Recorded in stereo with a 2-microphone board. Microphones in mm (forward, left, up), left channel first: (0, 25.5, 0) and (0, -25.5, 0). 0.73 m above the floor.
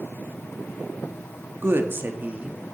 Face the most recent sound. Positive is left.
turn(degrees=-20)  # may be behind; listen again after turning